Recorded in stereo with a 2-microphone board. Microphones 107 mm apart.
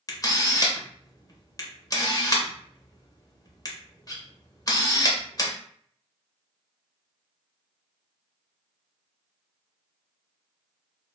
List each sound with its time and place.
0.1 s a camera shutter: 35° left (ahead or behind), 0.6 m